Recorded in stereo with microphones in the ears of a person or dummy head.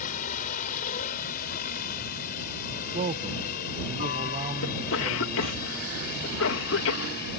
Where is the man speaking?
35° right (ahead or behind).